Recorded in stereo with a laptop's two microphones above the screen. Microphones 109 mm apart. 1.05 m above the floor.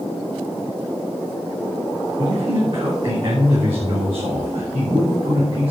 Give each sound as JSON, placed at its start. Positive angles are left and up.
{"t": 2.2, "sound": "a man speaking", "side_deg": -55, "distance_m": 3.5}